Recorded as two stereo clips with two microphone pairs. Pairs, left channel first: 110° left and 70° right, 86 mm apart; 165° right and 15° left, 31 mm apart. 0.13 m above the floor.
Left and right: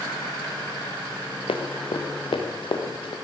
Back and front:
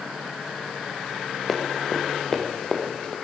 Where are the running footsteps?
105° left, 3.5 m; by 3.1 s 130° left, 4.5 m.